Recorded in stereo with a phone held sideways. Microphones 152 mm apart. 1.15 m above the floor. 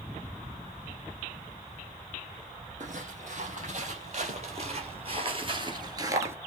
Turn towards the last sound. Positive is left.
turn(degrees=-15)  # may be behind; listen again after turning